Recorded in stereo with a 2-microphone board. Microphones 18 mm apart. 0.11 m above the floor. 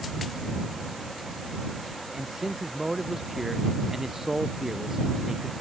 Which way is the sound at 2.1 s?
20° right (ahead or behind).